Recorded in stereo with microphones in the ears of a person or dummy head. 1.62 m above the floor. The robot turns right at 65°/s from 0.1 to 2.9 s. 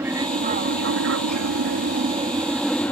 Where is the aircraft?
165° right; by 2.9 s 20° left.